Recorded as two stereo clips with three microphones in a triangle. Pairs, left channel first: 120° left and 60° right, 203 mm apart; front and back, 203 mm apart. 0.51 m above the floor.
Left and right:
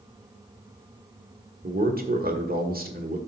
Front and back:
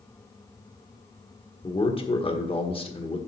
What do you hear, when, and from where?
1.6 s a man speaking: 50° right, 1.5 m